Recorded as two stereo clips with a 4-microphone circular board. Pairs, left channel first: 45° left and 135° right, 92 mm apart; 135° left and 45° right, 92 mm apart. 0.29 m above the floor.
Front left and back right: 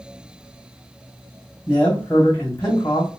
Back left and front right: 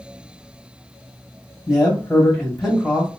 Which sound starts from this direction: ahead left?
A man speaking, at 1.7 s.